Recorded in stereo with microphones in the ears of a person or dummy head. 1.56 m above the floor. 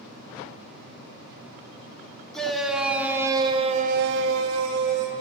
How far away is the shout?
About 2.5 m.